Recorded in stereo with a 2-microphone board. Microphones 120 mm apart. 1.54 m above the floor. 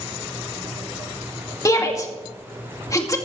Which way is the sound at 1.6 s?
30° left (ahead or behind).